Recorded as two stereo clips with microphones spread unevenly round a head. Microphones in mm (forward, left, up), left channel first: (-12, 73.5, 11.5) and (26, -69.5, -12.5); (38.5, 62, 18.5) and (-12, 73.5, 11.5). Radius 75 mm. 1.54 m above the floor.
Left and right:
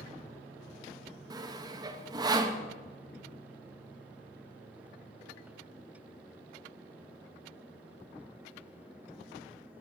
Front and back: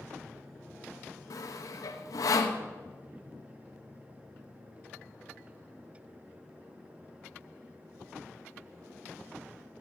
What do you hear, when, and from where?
1.3 s sawing: 10° right, 1.0 m